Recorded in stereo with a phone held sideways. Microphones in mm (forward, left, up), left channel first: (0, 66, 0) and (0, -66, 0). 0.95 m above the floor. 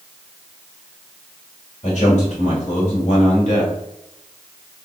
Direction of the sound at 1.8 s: 60° left (ahead or behind).